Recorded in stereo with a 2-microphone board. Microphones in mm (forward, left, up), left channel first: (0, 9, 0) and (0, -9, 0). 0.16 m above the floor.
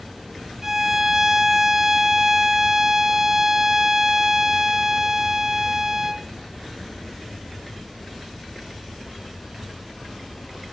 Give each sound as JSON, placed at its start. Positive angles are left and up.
{"t": 0.6, "sound": "a violin", "side_deg": -20, "distance_m": 0.8}